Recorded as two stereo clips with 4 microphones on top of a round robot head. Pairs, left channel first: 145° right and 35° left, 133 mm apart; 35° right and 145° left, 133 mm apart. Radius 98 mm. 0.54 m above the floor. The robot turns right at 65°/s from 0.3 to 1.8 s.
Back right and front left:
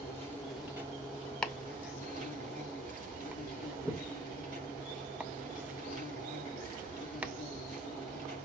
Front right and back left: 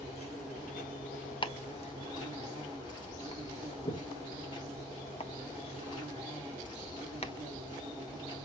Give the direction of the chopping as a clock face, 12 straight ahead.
2 o'clock.